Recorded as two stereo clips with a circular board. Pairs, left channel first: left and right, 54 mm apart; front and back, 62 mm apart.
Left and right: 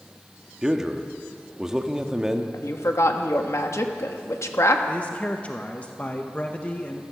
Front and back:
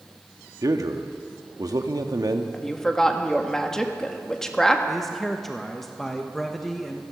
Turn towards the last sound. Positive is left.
turn(degrees=85)